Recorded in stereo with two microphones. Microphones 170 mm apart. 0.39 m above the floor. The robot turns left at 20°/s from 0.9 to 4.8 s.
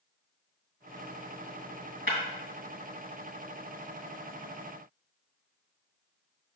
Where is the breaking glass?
75° right (ahead or behind), 1.9 m.